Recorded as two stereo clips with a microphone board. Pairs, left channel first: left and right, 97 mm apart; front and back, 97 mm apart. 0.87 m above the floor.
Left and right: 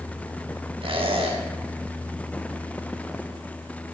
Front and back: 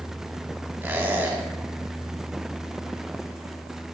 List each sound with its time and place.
0.8 s a squeak: 115° right, 4 m